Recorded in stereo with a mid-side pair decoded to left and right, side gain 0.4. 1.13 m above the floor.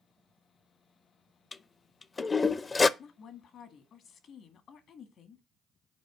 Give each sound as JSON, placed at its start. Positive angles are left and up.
{"t": 1.5, "sound": "a toilet flushing", "azimuth_deg": 35, "distance_m": 0.5}
{"t": 3.0, "sound": "a woman speaking", "azimuth_deg": 70, "distance_m": 1.6}